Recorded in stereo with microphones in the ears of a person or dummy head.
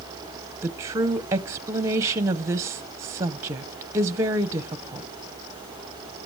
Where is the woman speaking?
15° right (ahead or behind), 0.7 m.